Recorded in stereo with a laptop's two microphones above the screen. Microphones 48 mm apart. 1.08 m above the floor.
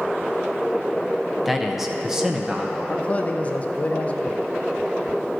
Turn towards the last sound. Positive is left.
turn(degrees=30)  # may be behind; listen again after turning